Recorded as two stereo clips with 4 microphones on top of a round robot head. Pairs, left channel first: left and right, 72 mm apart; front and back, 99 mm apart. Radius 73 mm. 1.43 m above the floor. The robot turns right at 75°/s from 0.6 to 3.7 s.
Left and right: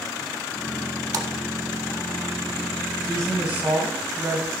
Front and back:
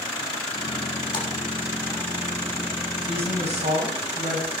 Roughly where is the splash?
Ahead right.